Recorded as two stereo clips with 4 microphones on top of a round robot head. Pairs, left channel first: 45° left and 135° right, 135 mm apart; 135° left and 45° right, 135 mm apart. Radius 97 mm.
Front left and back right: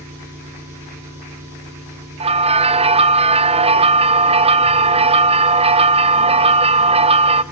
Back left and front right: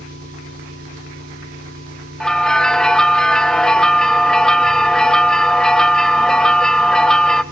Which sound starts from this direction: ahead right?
An engine running, at 0.0 s.